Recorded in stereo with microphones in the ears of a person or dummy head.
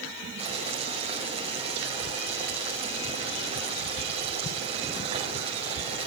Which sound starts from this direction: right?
Boiling, at 0.4 s.